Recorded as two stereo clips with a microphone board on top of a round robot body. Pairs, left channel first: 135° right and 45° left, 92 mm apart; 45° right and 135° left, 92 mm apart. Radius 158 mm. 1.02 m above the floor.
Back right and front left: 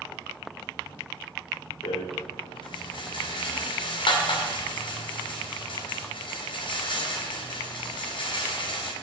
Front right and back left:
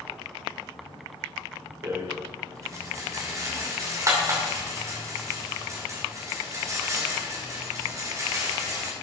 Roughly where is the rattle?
Behind.